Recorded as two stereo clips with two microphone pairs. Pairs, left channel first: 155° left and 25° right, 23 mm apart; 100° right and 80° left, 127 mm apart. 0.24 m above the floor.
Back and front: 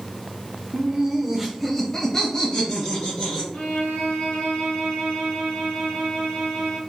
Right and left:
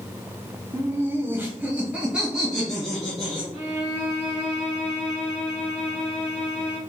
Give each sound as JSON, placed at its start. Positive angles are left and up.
{"t": 0.7, "sound": "laughter", "azimuth_deg": 15, "distance_m": 1.1}
{"t": 3.5, "sound": "a violin", "azimuth_deg": 165, "distance_m": 2.0}